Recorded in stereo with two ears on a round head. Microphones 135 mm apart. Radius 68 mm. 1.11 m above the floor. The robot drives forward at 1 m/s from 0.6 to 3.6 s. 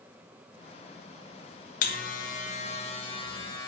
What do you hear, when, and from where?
1.8 s a buzzer: 60° left (ahead or behind), 1.1 m; by 3.7 s 30° left (ahead or behind), 2 m